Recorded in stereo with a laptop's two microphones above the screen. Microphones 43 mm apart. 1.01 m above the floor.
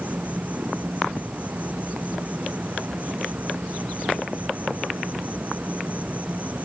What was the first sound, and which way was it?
An insect, 35° right (ahead or behind).